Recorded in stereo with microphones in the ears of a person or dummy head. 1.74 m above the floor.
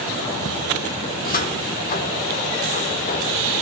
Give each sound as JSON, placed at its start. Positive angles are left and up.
{"t": 1.1, "sound": "a cupboard door", "side_deg": 55, "distance_m": 1.4}